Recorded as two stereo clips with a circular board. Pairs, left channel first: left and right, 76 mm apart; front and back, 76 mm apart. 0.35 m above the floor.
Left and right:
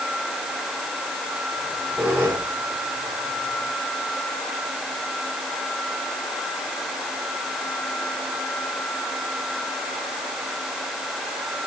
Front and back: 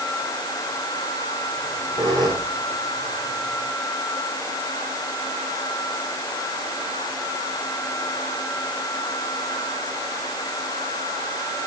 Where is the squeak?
160° right, 6.5 m.